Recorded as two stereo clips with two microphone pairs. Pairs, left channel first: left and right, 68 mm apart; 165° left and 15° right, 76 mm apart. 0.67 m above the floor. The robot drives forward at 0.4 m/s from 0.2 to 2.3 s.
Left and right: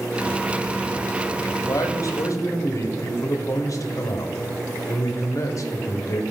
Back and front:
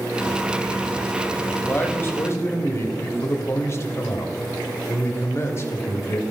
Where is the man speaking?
100° left, 1.2 m; by 6.2 s 115° left, 1.2 m.